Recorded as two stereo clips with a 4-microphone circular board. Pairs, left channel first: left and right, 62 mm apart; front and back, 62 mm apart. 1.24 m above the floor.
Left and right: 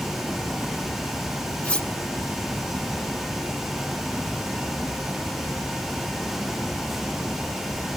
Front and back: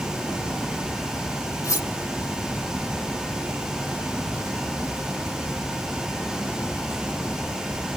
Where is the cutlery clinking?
20° left, 1.4 m.